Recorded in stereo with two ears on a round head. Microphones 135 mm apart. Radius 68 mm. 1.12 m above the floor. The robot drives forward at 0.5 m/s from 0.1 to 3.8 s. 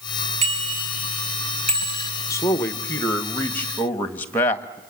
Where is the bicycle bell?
45° right (ahead or behind), 5.5 m; by 2.1 s 50° right (ahead or behind), 4.5 m.